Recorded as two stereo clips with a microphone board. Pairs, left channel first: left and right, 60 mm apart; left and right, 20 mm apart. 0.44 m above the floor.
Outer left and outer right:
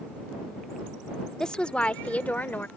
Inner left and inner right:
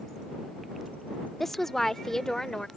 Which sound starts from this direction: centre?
A woman speaking, at 1.4 s.